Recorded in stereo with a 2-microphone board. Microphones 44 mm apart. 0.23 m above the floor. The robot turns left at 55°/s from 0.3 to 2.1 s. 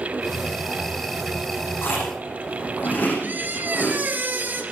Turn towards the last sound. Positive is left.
turn(degrees=-45)  # may be behind; listen again after turning